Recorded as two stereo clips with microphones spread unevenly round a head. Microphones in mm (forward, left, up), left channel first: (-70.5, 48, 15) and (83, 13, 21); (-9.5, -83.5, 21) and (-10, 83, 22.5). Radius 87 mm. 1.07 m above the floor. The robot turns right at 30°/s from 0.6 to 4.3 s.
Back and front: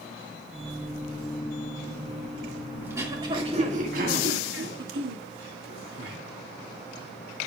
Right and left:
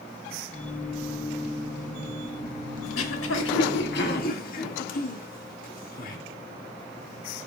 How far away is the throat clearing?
About 1.9 m.